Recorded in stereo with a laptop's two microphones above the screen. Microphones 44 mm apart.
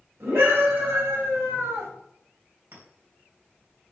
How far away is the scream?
About 5 m.